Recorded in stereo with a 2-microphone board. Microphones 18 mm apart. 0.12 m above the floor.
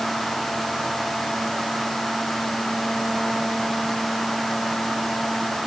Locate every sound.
Only background noise.